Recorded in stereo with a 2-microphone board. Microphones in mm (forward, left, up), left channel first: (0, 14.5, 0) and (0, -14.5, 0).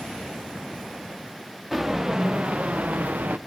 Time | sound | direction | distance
1.7 | footsteps | 15° right (ahead or behind) | 1.2 m